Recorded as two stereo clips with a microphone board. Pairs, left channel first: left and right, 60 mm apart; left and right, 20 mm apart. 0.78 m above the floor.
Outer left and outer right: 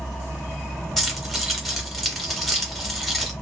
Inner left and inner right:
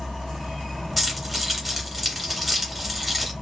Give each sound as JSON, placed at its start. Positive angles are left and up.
{"t": 1.0, "sound": "keys jangling", "side_deg": 5, "distance_m": 1.4}